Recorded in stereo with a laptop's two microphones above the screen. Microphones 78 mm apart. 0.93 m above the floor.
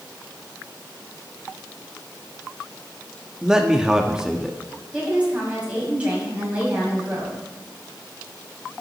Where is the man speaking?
10° right (ahead or behind), 1.3 m.